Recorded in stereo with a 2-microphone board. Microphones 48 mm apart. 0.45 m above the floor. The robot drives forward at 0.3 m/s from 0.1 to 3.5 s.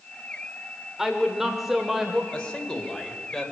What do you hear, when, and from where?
1.0 s a woman speaking: 10° right (ahead or behind), 1.1 m
2.3 s a man speaking: 20° left (ahead or behind), 2 m; by 3.5 s 15° left (ahead or behind), 2.5 m